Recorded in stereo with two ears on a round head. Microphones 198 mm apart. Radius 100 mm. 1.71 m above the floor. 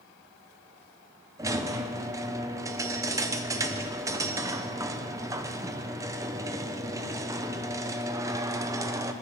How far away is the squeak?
About 0.6 m.